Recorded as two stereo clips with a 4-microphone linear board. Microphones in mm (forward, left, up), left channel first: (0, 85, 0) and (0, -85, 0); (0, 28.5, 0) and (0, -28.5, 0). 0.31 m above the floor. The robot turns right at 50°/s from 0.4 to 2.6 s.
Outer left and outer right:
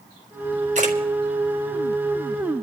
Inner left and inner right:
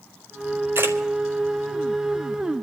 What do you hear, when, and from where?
0.8 s a camera shutter: 50° right (ahead or behind), 2.5 m; by 1.0 s 60° right (ahead or behind), 2.5 m